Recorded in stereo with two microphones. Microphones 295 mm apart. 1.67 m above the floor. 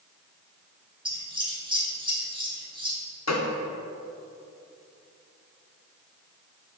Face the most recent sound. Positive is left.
turn(degrees=60)  # may be behind; listen again after turning